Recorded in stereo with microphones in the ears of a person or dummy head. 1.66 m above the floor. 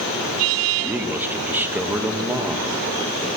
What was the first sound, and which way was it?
A man speaking, 10° right (ahead or behind).